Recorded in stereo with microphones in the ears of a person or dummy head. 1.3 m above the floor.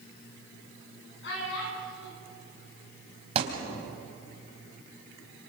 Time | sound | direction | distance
1.2 | a child speaking | 70° left (ahead or behind) | 8 m
3.4 | a thud | 35° right (ahead or behind) | 3 m